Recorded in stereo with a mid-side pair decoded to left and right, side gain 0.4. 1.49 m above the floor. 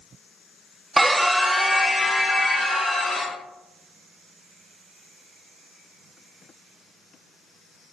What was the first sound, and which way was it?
A scream, 25° right.